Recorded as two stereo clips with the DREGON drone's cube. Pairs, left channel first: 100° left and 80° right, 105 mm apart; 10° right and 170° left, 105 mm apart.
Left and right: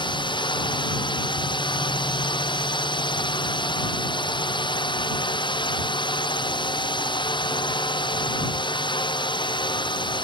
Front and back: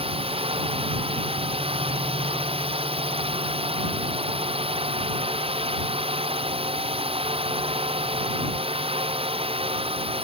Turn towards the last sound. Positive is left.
turn(degrees=145)